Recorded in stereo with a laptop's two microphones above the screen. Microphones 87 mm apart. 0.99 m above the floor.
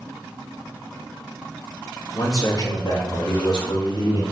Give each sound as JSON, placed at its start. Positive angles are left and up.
{"t": 2.1, "sound": "a man speaking", "side_deg": 45, "distance_m": 1.7}